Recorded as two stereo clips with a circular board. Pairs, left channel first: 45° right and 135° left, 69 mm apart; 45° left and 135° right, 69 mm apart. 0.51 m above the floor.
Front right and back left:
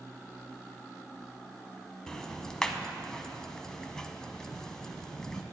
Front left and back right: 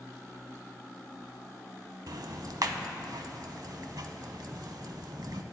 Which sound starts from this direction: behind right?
Ticking, at 2.1 s.